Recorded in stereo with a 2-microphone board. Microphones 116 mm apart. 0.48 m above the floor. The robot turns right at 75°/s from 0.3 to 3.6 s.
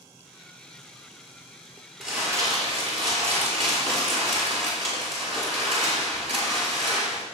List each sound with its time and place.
2.0 s crumpling: straight behind, 5.5 m; by 7.2 s 60° right, 5.5 m